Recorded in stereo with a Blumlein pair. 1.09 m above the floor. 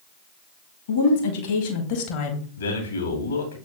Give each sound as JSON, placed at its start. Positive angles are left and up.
{"t": 0.9, "sound": "a woman speaking", "azimuth_deg": 60, "distance_m": 2.0}
{"t": 2.6, "sound": "a man speaking", "azimuth_deg": 70, "distance_m": 2.0}